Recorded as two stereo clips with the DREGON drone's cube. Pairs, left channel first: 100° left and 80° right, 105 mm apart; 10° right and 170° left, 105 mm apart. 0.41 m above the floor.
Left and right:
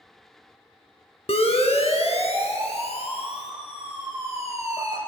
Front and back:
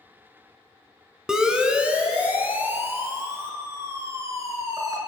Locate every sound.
1.3 s a siren: 85° left, 3.5 m; by 5.0 s 110° left, 5 m